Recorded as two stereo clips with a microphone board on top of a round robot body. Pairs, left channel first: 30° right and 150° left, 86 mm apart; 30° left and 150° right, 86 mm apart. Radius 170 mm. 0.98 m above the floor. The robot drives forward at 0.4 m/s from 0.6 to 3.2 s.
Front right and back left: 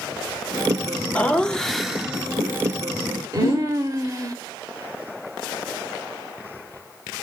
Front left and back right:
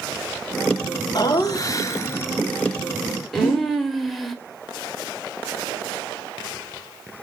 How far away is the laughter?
About 1.0 m.